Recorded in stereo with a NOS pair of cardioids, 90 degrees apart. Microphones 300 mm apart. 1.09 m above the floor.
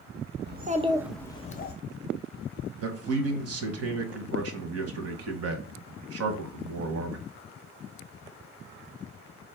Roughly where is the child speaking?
Ahead right.